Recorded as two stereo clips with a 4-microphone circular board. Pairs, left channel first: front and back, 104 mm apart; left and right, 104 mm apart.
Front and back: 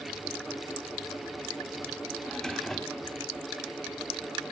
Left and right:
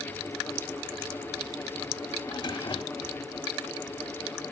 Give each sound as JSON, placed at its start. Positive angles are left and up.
{"t": 2.2, "sound": "a drawer", "azimuth_deg": 85, "distance_m": 0.6}